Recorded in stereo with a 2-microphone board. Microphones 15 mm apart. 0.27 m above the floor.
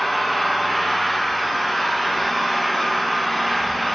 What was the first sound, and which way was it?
An engine running, 20° left (ahead or behind).